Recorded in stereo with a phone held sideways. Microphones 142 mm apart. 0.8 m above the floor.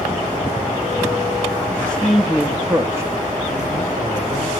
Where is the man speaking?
15° left (ahead or behind), 0.8 m; by 4.5 s 35° right (ahead or behind), 2.5 m.